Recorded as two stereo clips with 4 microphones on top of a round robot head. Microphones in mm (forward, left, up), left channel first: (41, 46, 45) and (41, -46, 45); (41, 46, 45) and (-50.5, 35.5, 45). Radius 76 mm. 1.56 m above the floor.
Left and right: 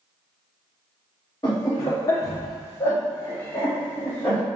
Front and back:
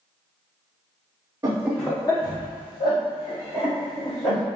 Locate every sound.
1.4 s laughter: 150° left, 0.5 m; by 4.4 s 20° left, 2.5 m